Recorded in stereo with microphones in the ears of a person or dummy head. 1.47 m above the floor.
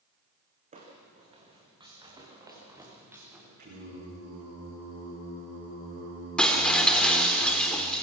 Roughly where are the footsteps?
Right.